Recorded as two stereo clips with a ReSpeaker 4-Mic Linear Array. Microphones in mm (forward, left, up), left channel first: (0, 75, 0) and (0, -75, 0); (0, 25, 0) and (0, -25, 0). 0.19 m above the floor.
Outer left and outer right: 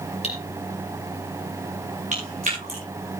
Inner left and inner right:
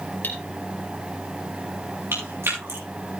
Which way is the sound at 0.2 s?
40° left (ahead or behind).